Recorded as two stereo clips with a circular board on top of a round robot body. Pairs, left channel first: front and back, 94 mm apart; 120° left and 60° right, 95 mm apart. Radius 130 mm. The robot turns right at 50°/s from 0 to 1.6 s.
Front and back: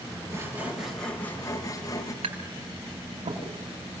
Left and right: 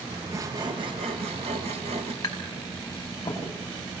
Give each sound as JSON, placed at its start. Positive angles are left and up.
{"t": 0.3, "sound": "sawing", "azimuth_deg": -120, "distance_m": 2.0}
{"t": 2.2, "sound": "tapping", "azimuth_deg": 180, "distance_m": 5.5}